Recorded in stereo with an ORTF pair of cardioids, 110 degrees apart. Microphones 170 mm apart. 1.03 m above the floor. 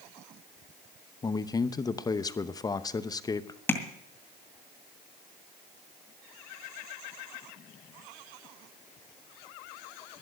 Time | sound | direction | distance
1.2 | a man speaking | 20° left | 0.8 m
3.7 | tapping | 10° left | 2 m